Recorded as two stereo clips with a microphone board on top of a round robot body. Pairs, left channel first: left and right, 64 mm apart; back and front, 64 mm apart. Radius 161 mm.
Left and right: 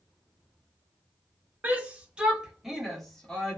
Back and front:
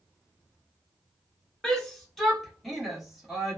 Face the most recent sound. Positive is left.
turn(degrees=70)